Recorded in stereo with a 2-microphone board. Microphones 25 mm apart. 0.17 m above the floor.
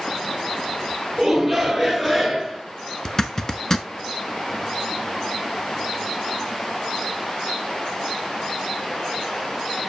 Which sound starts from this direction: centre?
A shout, at 1.2 s.